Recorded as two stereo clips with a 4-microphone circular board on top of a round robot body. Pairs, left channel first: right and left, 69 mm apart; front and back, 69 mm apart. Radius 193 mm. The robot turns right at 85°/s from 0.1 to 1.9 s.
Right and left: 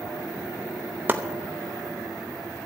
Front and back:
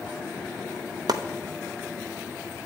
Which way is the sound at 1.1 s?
155° left.